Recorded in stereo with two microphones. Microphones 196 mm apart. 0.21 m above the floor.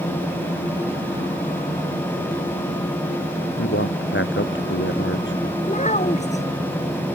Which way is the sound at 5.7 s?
35° left (ahead or behind).